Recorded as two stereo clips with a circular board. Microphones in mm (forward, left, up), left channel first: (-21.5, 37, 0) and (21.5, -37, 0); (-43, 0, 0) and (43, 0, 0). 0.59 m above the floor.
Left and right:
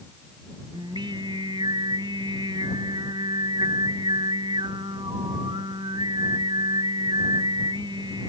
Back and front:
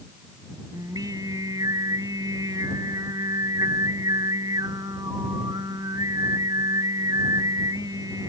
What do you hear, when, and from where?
0.7 s singing: 40° right